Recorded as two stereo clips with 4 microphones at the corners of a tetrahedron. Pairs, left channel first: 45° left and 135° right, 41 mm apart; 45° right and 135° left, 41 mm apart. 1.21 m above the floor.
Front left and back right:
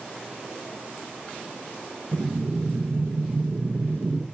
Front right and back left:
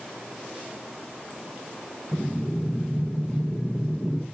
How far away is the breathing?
About 0.5 m.